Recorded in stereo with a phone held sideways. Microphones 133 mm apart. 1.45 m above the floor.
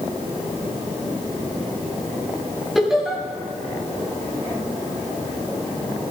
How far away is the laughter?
About 7.5 m.